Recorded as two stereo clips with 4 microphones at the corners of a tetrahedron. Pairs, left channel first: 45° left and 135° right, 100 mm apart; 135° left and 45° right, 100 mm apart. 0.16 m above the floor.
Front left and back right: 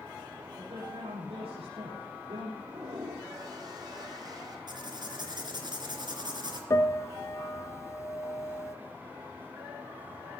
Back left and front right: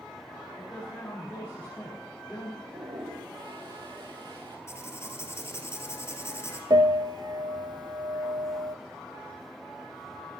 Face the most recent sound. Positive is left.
turn(degrees=-10)